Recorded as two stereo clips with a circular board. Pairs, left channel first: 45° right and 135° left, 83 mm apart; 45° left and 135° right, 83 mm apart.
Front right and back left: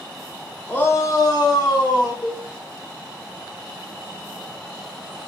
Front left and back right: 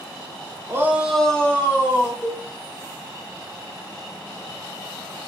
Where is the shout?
105° right, 0.6 m; by 2.1 s 15° right, 1.4 m.